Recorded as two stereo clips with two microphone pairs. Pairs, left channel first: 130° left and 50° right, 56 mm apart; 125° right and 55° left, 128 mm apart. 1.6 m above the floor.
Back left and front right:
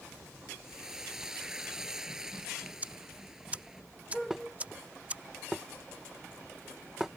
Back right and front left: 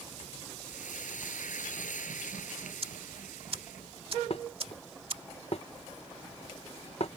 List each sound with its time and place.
0.6 s frying: 130° right
2.8 s ticking: 15° left
4.3 s dishes clattering: 135° right